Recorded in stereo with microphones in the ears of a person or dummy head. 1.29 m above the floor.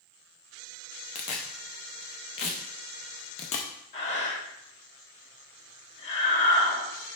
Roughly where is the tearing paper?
Left.